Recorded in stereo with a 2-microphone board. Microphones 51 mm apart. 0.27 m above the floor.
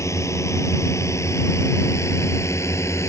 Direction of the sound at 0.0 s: 80° left.